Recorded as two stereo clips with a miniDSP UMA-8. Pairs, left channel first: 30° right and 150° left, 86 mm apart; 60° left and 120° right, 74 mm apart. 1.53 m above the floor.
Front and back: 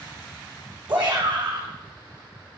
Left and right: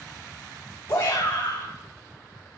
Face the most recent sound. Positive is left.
turn(degrees=135)